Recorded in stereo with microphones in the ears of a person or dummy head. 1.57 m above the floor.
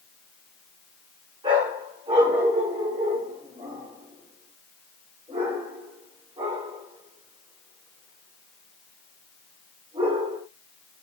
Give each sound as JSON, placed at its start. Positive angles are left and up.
{"t": 1.4, "sound": "a dog barking", "side_deg": -30, "distance_m": 4.5}